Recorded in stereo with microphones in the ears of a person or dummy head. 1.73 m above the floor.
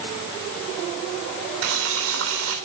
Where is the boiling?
75° right (ahead or behind), 3.5 m.